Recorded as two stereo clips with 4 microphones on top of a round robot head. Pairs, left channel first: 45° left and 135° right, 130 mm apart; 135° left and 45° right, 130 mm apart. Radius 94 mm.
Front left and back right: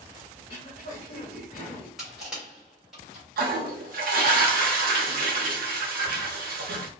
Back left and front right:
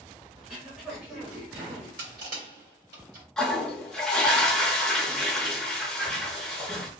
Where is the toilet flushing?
140° right, 0.6 m.